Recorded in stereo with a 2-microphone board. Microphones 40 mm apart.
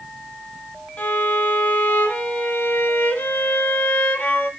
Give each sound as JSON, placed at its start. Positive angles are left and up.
{"t": 1.0, "sound": "a violin", "side_deg": 50, "distance_m": 0.9}